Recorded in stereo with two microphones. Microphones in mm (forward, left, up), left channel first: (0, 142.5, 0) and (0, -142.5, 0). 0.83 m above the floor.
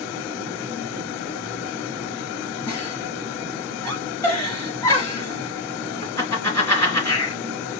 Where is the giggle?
10° left (ahead or behind), 4 m.